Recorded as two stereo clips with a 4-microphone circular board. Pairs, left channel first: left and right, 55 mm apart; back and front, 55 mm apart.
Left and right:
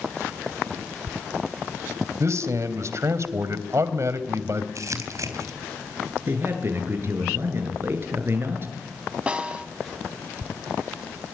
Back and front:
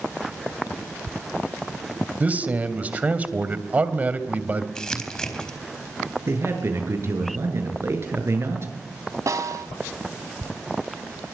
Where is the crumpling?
105° right, 4 m.